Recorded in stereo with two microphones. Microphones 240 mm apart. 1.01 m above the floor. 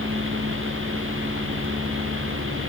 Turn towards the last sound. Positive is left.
No sound to turn to.